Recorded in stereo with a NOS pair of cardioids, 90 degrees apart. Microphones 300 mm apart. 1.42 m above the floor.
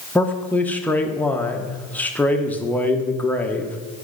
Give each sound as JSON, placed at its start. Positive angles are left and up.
{"t": 0.1, "sound": "a man speaking", "azimuth_deg": 5, "distance_m": 0.9}